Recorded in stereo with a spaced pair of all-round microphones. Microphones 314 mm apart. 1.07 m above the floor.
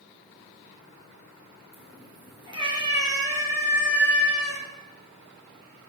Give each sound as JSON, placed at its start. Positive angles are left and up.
{"t": 1.7, "sound": "a cat meowing", "side_deg": -15, "distance_m": 6.5}